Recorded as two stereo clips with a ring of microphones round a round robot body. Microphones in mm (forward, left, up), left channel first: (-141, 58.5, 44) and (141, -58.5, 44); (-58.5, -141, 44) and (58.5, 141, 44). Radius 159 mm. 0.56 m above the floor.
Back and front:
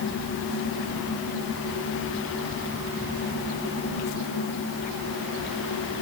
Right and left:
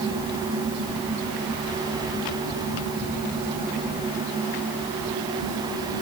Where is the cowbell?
No cowbell in this recording.